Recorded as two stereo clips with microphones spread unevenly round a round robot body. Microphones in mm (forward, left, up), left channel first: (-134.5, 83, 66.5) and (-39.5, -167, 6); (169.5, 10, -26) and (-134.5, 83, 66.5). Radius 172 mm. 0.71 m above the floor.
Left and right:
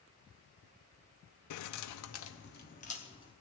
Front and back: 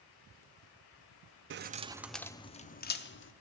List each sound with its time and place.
1.5 s keys jangling: 105° left, 0.5 m; by 3.3 s 30° left, 1.0 m